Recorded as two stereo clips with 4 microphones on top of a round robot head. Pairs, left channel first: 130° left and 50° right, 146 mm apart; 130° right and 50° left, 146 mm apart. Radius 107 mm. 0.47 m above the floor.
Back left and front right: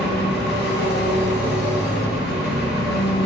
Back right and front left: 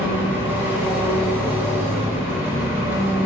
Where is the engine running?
125° left, 1.1 m.